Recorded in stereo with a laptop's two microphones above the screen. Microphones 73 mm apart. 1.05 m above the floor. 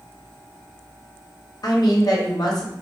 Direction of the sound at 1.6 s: 60° left (ahead or behind).